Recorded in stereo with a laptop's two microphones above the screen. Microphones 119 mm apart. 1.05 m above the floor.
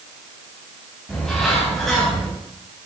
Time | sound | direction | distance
1.1 | a bird | 5° left (ahead or behind) | 6.5 m